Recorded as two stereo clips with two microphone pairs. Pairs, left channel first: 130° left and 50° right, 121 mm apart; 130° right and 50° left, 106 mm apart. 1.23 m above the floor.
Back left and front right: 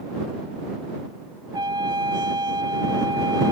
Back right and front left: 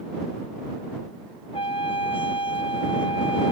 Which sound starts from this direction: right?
A trumpet, at 1.5 s.